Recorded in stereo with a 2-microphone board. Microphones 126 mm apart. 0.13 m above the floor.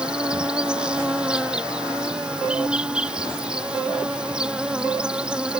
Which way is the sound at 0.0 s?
5° right (ahead or behind).